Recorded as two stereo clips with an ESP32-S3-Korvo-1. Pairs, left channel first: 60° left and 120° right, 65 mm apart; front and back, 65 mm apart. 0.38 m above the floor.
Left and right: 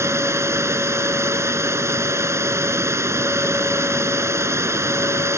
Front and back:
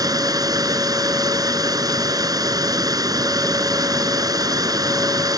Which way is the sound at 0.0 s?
165° right.